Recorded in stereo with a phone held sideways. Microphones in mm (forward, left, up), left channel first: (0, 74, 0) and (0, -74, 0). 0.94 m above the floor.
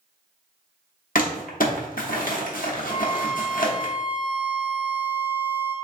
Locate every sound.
1.1 s crumpling: 70° left (ahead or behind), 0.8 m
2.9 s a violin: 25° left (ahead or behind), 1.2 m